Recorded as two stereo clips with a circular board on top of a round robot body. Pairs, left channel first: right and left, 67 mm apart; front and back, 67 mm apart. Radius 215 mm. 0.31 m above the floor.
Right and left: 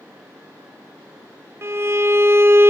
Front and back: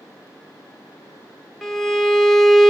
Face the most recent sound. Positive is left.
turn(degrees=85)